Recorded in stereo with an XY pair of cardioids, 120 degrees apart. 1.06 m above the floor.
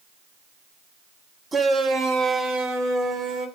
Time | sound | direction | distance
1.5 | a shout | 25° right | 1.2 m